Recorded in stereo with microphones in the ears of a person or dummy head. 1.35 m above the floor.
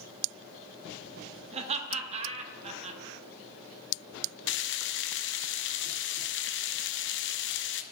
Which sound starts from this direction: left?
Frying, at 4.5 s.